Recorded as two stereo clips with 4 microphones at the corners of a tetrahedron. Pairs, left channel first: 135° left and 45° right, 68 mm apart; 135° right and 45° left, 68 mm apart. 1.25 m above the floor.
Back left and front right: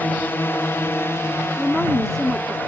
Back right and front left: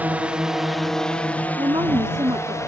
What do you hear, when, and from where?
0.0 s a drone: 95° left; by 2.7 s 170° right
1.6 s a woman speaking: 50° left